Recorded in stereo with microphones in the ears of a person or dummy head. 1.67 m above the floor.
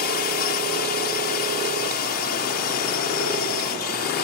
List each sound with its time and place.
0.0 s a drone: 50° left (ahead or behind)